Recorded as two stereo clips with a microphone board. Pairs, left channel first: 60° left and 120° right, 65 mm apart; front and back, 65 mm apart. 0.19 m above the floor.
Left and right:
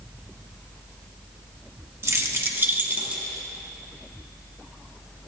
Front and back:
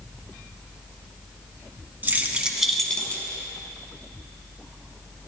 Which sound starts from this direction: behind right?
Keys jangling, at 2.0 s.